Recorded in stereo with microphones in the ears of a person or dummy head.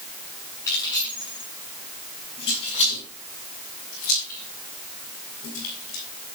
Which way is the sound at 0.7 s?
20° left (ahead or behind).